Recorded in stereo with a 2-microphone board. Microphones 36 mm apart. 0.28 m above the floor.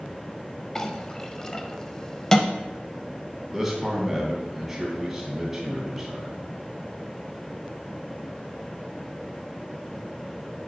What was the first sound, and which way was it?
A clink, 15° left (ahead or behind).